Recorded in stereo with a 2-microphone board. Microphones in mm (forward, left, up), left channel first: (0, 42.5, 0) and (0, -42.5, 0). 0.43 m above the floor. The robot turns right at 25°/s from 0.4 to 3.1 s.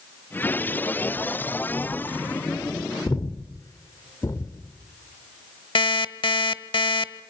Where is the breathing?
40° left (ahead or behind), 1.6 m.